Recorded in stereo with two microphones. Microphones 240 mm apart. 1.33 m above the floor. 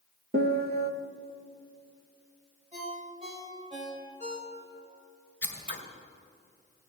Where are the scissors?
55° left (ahead or behind), 2.5 m.